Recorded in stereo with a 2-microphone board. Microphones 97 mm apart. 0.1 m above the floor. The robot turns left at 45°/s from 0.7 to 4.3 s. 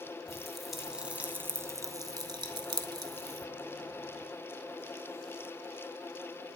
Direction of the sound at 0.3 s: Centre (ahead or behind).